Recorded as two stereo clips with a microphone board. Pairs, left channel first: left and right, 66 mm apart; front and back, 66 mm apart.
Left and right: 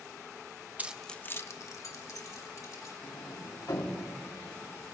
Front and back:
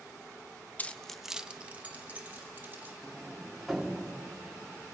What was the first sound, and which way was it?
Keys jangling, 45° right.